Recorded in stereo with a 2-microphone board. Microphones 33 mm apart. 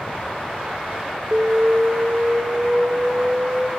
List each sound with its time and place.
1.3 s an alarm: 45° right (ahead or behind), 1.2 m